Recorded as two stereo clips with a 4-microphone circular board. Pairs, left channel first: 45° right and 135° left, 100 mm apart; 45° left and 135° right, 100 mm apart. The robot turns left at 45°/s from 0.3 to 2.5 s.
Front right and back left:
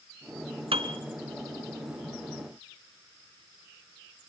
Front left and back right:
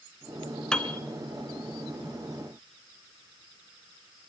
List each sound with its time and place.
0.7 s a piano: 125° left, 1.6 m; by 1.0 s 115° left, 1.6 m